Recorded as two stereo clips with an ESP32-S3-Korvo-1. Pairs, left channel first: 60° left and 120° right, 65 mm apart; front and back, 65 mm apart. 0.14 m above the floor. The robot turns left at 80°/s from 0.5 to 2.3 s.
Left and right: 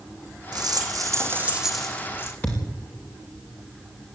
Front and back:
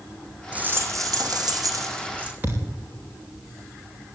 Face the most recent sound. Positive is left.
turn(degrees=120)